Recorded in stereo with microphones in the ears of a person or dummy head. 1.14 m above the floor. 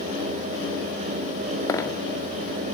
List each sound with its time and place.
1.7 s a dropped coin: 20° left (ahead or behind), 0.7 m